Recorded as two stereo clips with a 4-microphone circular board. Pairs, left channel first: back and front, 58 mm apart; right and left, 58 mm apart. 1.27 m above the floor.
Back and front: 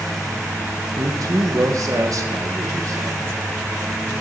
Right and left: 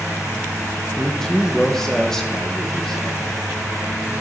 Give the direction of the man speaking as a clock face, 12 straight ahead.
12 o'clock.